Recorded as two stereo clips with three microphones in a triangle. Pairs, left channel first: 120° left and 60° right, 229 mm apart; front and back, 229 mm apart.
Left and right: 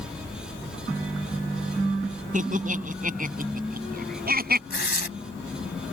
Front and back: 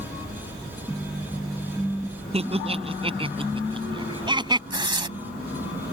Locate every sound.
2.3 s laughter: 115° right; by 4.6 s 110° right
4.7 s tearing paper: 115° left